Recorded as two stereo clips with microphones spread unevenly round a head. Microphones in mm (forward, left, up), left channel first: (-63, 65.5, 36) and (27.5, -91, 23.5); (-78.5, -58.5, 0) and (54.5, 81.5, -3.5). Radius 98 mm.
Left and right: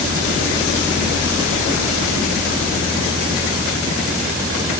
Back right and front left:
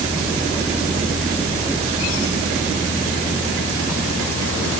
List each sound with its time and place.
Only background noise.